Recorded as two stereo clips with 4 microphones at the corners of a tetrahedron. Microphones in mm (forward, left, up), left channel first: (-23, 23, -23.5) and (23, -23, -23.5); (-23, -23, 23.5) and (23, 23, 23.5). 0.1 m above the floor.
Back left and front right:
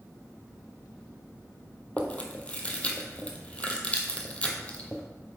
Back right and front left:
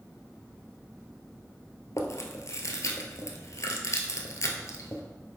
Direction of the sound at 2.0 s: 160° right.